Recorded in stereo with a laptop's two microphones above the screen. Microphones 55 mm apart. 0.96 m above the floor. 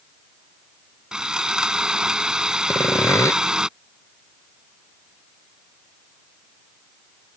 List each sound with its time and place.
1.1 s sawing: 15° right (ahead or behind)
2.7 s sawing: 70° left (ahead or behind)